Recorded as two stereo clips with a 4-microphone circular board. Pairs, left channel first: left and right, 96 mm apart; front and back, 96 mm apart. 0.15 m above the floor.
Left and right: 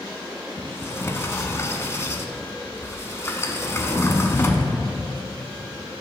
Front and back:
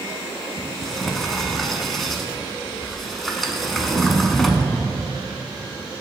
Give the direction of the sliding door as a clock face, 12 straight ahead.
9 o'clock.